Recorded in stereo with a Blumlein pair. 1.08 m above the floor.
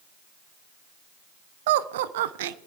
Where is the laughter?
55° right, 0.5 m.